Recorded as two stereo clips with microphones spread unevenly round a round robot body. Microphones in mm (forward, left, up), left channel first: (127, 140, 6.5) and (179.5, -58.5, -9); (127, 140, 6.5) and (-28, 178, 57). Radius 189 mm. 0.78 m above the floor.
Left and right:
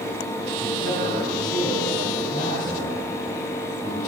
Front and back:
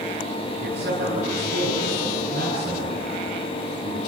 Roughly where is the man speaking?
Behind right.